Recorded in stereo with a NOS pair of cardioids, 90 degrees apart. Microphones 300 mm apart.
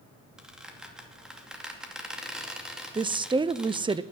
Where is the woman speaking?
15° right, 0.7 m.